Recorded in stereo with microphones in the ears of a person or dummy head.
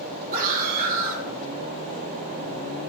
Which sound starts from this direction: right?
A scream, at 0.3 s.